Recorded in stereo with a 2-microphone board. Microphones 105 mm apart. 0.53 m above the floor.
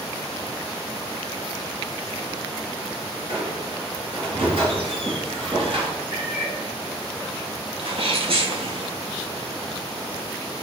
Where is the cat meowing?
45° right (ahead or behind), 3 m.